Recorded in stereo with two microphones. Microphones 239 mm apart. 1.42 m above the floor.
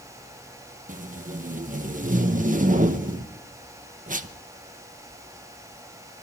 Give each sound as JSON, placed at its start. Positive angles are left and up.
{"t": 0.9, "sound": "tape being pulled", "side_deg": -35, "distance_m": 1.0}